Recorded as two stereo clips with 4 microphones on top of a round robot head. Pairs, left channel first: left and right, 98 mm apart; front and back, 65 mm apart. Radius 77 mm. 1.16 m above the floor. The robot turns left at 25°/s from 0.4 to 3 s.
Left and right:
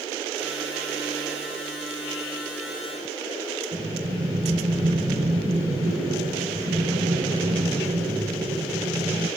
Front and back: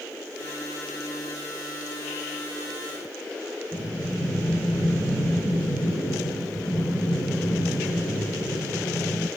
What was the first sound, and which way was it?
Breathing, 105° right.